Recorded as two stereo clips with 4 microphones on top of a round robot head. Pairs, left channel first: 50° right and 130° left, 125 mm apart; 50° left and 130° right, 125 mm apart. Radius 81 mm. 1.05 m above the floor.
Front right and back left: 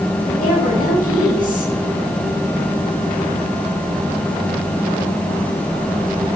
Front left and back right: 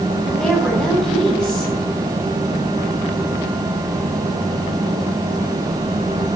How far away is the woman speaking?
About 9.5 m.